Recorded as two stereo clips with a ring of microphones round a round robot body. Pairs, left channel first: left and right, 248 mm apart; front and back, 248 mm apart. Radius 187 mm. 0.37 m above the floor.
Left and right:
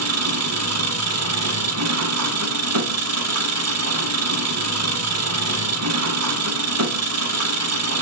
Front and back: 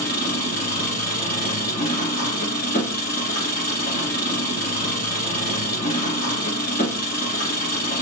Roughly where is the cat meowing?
No cat meowing in this recording.